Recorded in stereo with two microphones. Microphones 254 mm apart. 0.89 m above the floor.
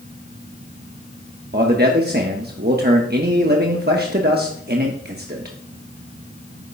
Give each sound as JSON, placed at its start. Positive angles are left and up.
{"t": 1.5, "sound": "a man speaking", "side_deg": -40, "distance_m": 1.0}